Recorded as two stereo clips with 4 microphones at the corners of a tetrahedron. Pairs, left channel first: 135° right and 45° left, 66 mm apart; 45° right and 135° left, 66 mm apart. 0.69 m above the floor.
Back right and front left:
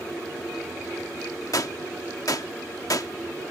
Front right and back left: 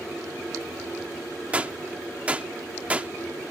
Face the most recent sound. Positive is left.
turn(degrees=-155)